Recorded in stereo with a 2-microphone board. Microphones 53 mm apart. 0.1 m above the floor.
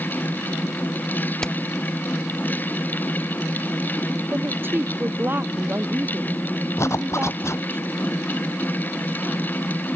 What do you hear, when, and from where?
1.4 s hammering: 15° left (ahead or behind)
4.3 s a woman speaking: 40° right (ahead or behind)
6.8 s a zipper: 60° left (ahead or behind)